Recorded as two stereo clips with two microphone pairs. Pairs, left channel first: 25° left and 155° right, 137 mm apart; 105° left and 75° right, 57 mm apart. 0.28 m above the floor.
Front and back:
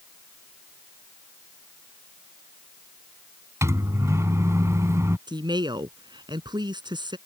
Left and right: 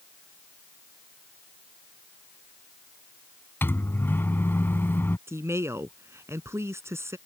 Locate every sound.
3.6 s a microwave: 145° left
5.3 s a woman speaking: 100° right